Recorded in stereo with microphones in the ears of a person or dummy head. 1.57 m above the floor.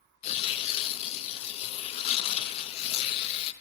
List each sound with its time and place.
0.2 s tearing paper: 30° left (ahead or behind), 0.5 m